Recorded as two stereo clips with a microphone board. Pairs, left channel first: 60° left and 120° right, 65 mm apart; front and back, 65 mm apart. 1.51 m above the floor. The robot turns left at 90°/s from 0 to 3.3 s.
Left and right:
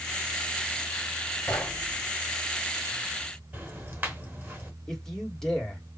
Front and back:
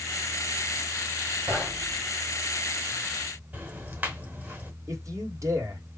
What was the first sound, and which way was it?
Knocking, 120° left.